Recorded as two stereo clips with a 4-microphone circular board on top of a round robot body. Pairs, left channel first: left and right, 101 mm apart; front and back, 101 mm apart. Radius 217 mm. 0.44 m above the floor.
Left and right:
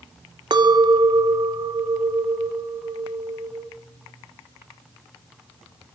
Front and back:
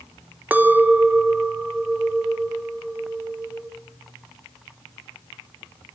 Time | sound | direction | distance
0.5 | a clink | 110° right | 0.6 m